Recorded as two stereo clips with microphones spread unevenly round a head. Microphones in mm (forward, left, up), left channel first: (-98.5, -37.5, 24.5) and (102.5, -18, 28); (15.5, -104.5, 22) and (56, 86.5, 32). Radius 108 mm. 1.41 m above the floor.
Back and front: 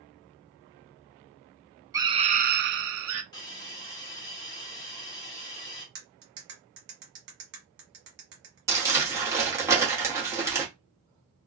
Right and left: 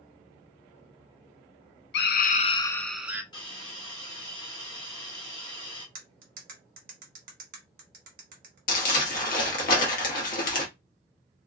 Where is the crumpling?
65° right, 1.0 m.